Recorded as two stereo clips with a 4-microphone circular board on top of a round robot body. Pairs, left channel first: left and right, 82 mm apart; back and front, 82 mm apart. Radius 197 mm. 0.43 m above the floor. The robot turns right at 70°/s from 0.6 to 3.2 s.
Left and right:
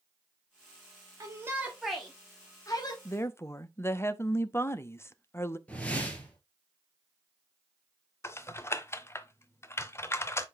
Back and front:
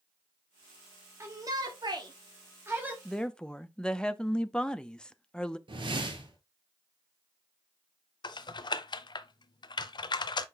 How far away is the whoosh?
About 1.7 m.